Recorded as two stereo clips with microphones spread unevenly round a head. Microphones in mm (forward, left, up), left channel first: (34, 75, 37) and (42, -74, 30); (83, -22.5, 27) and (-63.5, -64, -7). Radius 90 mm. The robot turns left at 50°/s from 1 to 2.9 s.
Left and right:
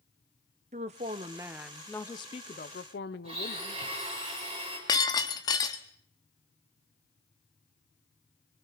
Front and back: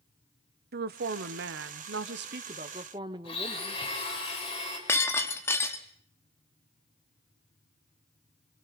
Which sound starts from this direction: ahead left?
Breaking glass, at 4.9 s.